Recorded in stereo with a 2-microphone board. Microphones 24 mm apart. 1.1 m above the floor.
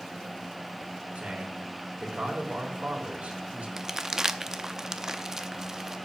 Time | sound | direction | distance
1.1 | a man speaking | 80° right | 3.5 m
3.8 | crumpling | 20° right (ahead or behind) | 0.7 m